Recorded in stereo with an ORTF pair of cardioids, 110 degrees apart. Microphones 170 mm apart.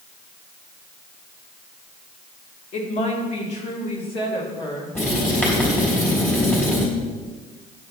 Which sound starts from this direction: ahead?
Writing, at 5.0 s.